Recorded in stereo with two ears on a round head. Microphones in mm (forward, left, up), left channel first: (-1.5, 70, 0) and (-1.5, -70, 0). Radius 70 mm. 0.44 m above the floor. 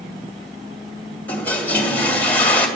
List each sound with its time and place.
1.3 s a toilet flushing: 10° left (ahead or behind), 1.8 m